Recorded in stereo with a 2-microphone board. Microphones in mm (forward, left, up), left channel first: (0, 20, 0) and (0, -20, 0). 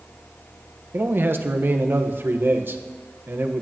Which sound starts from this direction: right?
A man speaking, at 0.9 s.